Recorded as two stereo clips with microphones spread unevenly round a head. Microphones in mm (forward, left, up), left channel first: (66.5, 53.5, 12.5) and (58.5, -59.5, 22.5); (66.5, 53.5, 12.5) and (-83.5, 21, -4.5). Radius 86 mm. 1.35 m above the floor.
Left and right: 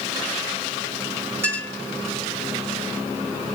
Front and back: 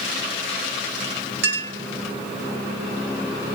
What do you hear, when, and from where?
1.4 s a clink: 170° right, 3.5 m